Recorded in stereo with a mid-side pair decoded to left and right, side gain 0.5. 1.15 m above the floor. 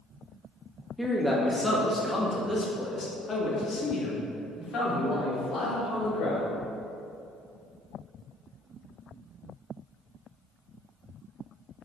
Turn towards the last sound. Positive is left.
turn(degrees=65)